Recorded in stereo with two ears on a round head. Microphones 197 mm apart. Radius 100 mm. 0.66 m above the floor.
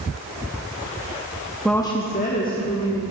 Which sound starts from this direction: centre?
A woman speaking, at 1.6 s.